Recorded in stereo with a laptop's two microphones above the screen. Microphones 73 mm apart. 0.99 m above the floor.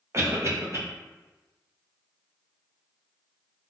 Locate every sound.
0.1 s a cough: 40° right (ahead or behind), 0.7 m